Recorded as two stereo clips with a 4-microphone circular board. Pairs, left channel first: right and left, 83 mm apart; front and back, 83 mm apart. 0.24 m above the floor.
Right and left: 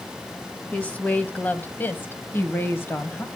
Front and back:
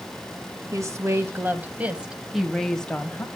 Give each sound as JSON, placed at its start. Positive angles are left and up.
{"t": 0.7, "sound": "a woman speaking", "azimuth_deg": -155, "distance_m": 1.4}